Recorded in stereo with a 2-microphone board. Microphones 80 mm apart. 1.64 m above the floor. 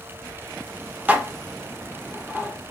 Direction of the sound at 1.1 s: 20° right (ahead or behind).